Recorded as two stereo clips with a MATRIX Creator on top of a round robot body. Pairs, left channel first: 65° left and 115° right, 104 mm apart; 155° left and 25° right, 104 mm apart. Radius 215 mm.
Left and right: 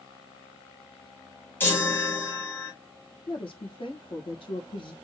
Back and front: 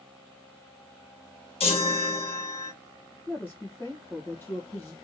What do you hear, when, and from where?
1.6 s a chime: 140° left, 2 m
3.3 s a woman speaking: 90° left, 1.5 m